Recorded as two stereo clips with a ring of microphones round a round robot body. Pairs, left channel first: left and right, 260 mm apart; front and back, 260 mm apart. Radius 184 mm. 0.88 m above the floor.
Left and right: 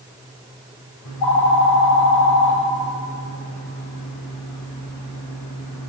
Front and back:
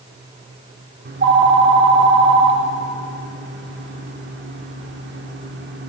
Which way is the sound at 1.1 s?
135° left.